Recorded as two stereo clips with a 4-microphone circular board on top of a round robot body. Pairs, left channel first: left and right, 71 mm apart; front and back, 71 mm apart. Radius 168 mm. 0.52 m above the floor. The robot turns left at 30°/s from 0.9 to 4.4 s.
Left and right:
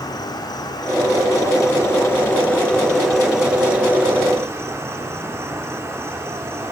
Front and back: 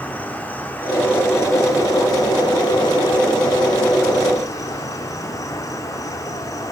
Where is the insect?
70° left, 1.0 m; by 6.7 s 35° right, 1.0 m.